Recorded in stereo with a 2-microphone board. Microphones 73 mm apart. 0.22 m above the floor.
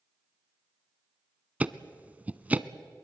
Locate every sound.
1.6 s ticking: 20° right (ahead or behind), 0.6 m